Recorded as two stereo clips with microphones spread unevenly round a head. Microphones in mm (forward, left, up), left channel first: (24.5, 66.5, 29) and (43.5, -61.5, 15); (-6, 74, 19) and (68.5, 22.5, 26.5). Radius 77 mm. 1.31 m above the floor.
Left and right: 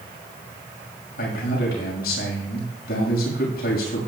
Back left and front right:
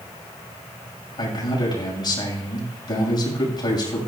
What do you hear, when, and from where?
1.2 s a man speaking: 105° left, 6 m